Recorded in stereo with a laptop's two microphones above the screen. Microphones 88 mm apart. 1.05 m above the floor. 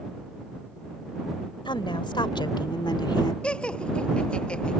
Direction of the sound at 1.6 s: 65° left (ahead or behind).